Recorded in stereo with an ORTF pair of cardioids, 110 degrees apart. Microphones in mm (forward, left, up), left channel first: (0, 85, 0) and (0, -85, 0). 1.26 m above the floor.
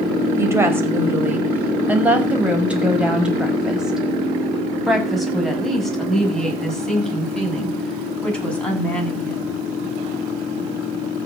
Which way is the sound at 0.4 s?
15° right.